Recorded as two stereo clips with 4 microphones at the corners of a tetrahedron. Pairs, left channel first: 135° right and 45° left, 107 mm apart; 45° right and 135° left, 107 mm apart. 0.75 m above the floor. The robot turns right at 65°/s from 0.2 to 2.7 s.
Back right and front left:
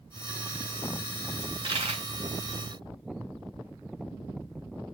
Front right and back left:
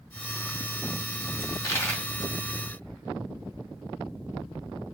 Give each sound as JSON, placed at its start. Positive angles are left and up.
{"t": 1.4, "sound": "a dropped coin", "azimuth_deg": -5, "distance_m": 1.5}